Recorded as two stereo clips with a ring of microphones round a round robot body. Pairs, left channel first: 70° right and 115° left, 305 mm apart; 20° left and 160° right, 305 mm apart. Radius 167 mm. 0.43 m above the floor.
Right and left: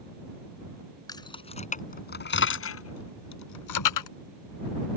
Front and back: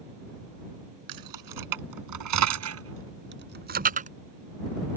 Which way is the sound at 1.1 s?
145° right.